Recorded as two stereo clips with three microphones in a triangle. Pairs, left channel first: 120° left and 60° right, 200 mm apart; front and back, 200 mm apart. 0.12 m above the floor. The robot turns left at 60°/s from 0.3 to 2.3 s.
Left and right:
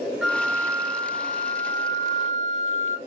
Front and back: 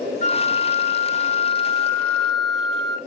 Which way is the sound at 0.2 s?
25° left.